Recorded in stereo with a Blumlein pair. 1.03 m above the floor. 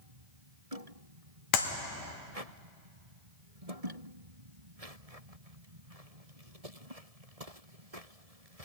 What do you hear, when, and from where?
1.5 s a clap: 40° left, 1.4 m